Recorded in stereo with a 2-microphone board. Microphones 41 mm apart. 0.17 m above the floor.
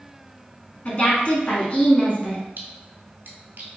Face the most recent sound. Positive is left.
turn(degrees=-55)  # may be behind; listen again after turning